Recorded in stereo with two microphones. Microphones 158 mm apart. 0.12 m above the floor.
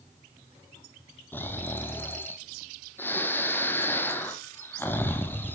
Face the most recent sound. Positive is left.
turn(degrees=15)  # may be behind; listen again after turning